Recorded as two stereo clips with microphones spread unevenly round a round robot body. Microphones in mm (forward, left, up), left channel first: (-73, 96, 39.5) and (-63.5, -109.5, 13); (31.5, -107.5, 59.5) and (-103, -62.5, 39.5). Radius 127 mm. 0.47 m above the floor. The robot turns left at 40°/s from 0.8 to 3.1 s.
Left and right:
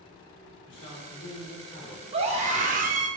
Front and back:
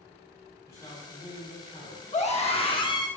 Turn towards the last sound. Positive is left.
turn(degrees=-80)